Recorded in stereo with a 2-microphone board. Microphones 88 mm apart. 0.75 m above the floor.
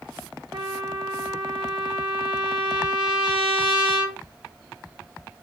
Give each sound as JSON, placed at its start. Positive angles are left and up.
{"t": 0.5, "sound": "a trumpet", "side_deg": -70, "distance_m": 1.0}